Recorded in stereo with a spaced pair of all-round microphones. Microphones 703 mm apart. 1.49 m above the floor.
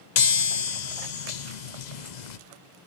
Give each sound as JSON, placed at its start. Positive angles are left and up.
{"t": 0.2, "sound": "a chime", "side_deg": 75, "distance_m": 0.9}